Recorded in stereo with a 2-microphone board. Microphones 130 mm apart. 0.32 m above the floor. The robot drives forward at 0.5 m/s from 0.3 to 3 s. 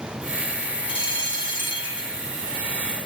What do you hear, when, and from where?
0.9 s a bell: 40° left (ahead or behind), 1.7 m